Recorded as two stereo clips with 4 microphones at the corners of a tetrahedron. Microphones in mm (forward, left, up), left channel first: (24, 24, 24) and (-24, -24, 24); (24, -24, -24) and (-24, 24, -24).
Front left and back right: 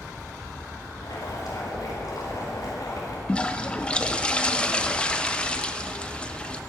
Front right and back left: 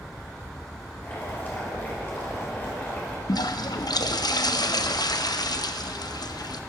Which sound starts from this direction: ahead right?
A toilet flushing, at 3.3 s.